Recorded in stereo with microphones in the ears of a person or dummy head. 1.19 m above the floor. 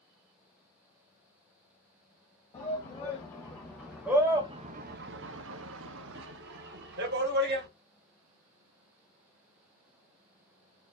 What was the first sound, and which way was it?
A shout, 25° left (ahead or behind).